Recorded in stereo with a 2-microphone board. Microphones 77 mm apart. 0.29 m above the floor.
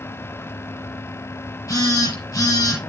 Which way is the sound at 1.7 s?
45° left (ahead or behind).